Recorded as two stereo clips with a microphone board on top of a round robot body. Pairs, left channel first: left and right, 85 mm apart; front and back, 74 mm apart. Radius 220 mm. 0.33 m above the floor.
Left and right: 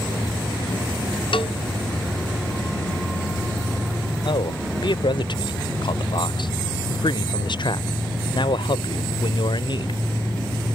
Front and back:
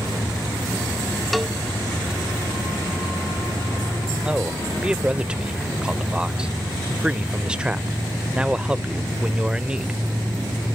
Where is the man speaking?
105° left.